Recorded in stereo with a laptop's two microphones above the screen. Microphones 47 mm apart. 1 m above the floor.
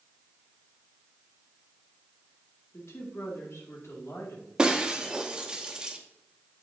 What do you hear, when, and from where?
2.7 s a woman speaking: 80° left, 2 m
4.6 s breaking glass: 15° right (ahead or behind), 0.7 m